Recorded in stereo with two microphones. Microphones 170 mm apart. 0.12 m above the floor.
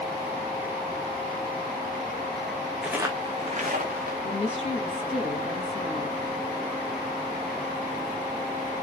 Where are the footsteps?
5° right (ahead or behind), 0.6 m; by 4.1 s 65° right (ahead or behind), 1.0 m.